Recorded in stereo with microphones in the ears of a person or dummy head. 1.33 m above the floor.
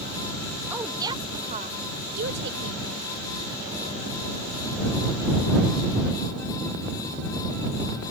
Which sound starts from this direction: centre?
A woman speaking, at 0.7 s.